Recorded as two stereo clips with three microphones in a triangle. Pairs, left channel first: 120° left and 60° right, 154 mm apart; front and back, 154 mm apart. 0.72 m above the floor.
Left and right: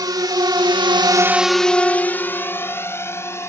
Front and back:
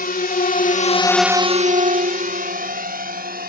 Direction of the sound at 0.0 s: 5° left.